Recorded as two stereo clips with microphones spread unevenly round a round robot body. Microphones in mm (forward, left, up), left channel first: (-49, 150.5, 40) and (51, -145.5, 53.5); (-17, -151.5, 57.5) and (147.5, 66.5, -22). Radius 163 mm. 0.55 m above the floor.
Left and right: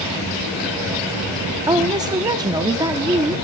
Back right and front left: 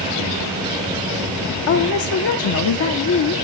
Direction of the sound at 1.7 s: 145° right.